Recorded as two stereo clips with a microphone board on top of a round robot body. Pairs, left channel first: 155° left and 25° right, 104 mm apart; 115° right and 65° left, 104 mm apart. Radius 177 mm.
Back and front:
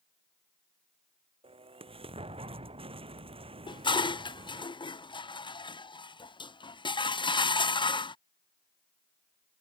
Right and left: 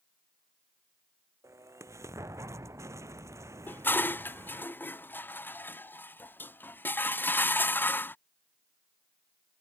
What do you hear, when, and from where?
1.4 s an explosion: 5° left
3.7 s dishes clattering: straight behind